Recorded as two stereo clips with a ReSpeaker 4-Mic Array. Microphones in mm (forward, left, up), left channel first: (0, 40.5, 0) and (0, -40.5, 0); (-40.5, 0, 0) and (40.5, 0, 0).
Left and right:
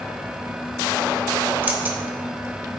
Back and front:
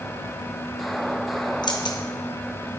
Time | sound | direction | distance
1.6 | keys jangling | 155° right | 0.9 m